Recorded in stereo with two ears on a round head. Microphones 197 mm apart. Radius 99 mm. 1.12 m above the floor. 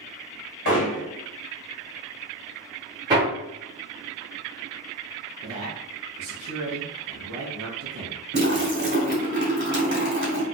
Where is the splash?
45° right (ahead or behind), 1.9 m.